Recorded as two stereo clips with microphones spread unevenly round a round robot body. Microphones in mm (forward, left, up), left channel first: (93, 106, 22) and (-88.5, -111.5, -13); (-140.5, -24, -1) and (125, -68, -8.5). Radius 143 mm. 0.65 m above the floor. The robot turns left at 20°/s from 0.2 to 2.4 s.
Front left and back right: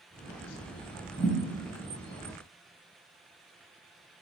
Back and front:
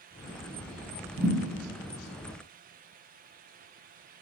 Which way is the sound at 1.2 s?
10° right.